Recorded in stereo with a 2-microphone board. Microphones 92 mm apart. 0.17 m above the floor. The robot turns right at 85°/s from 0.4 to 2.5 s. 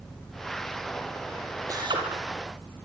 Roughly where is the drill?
Behind right.